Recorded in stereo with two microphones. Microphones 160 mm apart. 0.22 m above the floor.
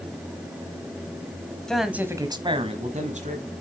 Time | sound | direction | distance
1.7 | a man speaking | 5° left (ahead or behind) | 1.2 m